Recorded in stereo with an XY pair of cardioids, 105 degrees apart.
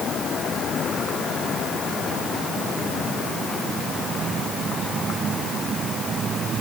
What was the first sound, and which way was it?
Only background noise.